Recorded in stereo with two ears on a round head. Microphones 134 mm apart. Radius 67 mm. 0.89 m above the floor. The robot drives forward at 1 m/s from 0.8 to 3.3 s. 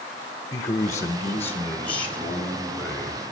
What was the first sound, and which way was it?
A man speaking, 20° left (ahead or behind).